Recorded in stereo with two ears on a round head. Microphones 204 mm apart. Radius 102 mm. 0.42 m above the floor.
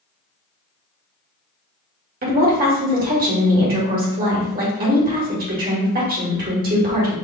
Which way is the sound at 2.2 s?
40° right (ahead or behind).